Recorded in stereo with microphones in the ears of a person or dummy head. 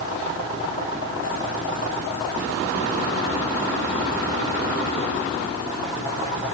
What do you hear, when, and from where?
Only background noise.